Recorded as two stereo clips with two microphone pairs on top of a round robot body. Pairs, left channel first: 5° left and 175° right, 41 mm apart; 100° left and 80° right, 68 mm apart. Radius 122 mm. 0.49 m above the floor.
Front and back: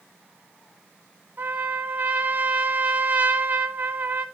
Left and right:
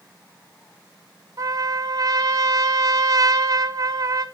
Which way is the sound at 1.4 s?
125° right.